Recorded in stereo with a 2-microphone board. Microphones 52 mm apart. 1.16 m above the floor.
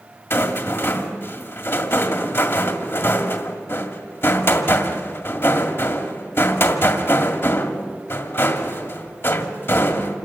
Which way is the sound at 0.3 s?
50° left (ahead or behind).